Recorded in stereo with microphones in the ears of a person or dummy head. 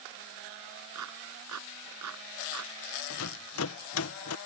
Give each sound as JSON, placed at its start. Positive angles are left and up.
{"t": 0.9, "sound": "a clap", "side_deg": -85}
{"t": 3.1, "sound": "a rattle", "side_deg": 70}